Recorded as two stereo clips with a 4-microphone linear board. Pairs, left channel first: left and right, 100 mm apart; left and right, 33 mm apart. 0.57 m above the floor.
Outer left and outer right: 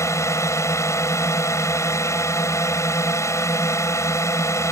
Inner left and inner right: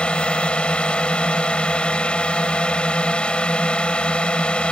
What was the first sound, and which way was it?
A drone, 30° left (ahead or behind).